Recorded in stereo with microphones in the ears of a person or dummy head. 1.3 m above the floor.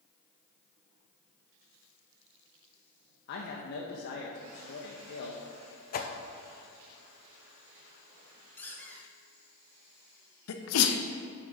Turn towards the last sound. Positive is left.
turn(degrees=80)